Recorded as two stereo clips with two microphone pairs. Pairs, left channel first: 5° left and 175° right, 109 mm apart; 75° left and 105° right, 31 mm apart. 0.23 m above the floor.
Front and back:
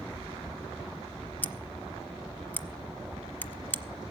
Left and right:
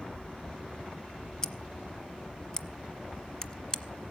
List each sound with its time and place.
1.4 s scissors: 55° left, 0.7 m